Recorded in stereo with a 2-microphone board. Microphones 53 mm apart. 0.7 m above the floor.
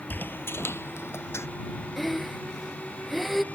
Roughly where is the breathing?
Centre.